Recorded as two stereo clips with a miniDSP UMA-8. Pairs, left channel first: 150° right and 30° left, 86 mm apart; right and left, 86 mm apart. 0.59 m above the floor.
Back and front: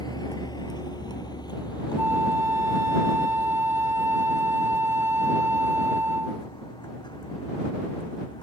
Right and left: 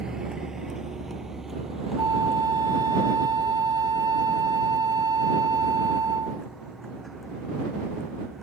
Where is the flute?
80° left.